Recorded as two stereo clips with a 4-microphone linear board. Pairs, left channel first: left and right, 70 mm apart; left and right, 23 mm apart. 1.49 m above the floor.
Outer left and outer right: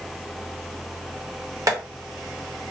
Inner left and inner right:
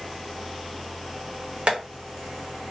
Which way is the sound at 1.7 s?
55° right (ahead or behind).